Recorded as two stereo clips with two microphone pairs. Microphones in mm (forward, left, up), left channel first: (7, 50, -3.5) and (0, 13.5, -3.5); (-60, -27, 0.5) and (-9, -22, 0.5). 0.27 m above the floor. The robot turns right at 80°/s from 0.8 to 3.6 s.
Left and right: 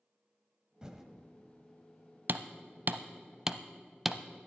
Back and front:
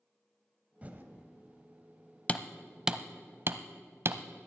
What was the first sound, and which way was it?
Typing on a keyboard, 40° right.